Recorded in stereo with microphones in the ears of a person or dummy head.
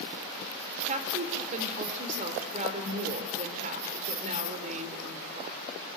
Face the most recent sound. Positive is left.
turn(degrees=-45)  # may be behind; listen again after turning